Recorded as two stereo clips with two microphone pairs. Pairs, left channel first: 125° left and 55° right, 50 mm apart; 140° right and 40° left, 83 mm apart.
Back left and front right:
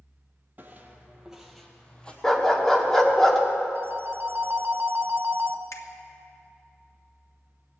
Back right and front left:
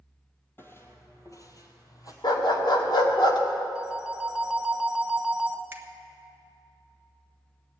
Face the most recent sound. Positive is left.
turn(degrees=105)